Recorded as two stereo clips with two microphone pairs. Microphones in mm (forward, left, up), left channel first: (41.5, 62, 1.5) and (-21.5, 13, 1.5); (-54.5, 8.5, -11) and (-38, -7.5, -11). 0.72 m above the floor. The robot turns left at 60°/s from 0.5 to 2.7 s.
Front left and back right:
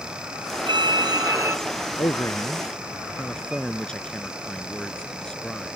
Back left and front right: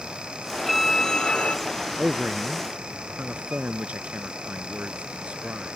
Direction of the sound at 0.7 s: 145° right.